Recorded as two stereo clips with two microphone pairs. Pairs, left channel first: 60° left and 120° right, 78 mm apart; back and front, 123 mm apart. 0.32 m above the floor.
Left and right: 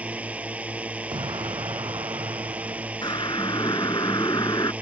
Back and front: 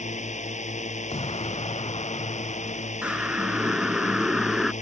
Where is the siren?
80° left; by 4.7 s 85° left.